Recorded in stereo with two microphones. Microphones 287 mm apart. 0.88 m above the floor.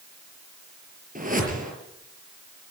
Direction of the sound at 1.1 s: 30° right (ahead or behind).